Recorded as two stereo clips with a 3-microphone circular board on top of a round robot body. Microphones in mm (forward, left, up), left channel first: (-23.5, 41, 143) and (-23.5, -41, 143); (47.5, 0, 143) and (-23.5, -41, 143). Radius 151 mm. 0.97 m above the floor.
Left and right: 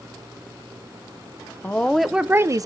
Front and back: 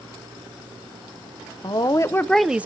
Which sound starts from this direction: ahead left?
A woman speaking, at 1.6 s.